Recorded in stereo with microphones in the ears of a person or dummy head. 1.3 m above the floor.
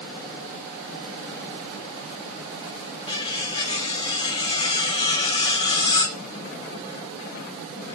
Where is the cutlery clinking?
35° left (ahead or behind), 2 m.